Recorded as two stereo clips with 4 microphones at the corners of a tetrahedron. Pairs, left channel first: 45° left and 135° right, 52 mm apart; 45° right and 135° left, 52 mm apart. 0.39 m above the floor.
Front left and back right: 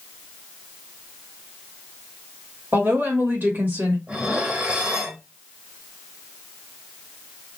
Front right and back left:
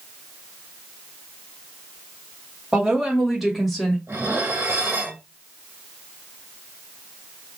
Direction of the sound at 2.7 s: 155° right.